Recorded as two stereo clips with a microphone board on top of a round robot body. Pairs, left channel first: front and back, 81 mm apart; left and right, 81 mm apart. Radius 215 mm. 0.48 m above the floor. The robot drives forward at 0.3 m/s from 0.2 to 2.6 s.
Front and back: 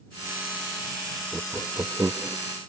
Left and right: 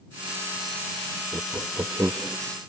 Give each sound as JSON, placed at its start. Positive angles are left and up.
{"t": 1.3, "sound": "laughter", "azimuth_deg": -115}